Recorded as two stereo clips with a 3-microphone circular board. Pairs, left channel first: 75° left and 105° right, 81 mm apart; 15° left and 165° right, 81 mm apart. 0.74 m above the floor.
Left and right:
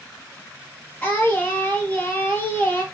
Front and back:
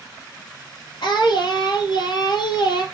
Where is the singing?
5° left, 3 m.